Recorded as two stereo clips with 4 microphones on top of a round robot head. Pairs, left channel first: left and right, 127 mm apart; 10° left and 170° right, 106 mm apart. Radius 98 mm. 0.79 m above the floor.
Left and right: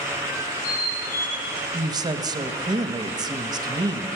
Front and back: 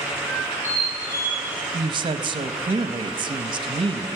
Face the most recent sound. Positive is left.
turn(degrees=-140)